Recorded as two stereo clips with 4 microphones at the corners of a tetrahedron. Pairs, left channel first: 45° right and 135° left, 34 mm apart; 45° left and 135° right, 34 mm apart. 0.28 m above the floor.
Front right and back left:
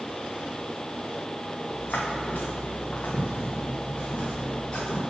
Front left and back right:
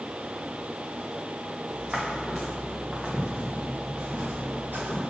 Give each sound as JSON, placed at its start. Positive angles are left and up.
{"t": 1.7, "sound": "footsteps", "azimuth_deg": -65, "distance_m": 1.8}